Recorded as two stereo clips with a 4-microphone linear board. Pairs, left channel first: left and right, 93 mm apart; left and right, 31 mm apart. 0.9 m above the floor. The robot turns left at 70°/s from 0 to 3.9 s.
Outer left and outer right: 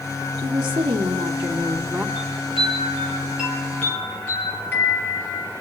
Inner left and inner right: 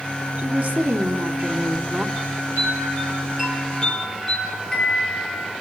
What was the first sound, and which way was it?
A woman speaking, 35° right.